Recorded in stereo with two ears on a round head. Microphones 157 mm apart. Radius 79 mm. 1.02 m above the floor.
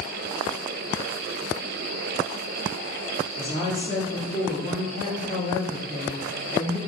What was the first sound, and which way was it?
A woman speaking, 40° left (ahead or behind).